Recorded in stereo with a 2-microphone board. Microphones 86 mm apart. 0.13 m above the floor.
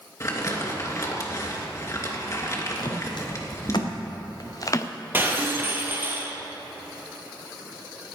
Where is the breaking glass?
25° right (ahead or behind), 2.0 m.